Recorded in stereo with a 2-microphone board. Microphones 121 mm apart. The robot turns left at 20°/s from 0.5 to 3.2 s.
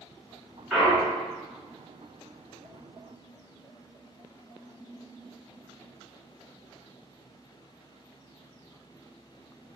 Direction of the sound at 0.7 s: 10° right (ahead or behind).